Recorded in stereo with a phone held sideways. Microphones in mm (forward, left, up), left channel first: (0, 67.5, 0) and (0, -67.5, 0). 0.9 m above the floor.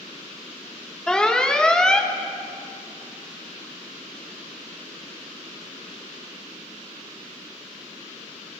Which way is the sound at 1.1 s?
5° left (ahead or behind).